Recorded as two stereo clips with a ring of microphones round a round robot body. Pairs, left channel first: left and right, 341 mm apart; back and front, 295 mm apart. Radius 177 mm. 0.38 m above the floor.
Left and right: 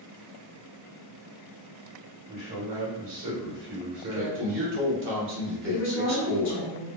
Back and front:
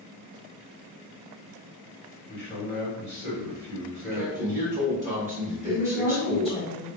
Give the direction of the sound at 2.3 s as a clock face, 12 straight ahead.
4 o'clock.